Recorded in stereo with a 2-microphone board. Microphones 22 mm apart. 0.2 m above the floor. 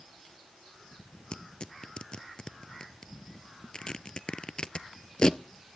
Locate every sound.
1.3 s tearing paper: 40° left (ahead or behind), 0.6 m